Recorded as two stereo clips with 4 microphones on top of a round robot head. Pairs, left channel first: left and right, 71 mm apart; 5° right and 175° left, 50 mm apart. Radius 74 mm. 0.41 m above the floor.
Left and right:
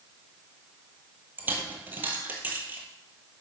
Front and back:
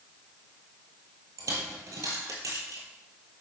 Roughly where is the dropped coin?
Behind right.